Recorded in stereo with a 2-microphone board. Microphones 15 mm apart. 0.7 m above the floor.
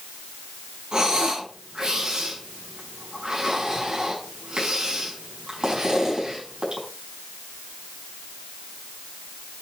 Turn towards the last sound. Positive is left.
turn(degrees=-65)  # may be behind; listen again after turning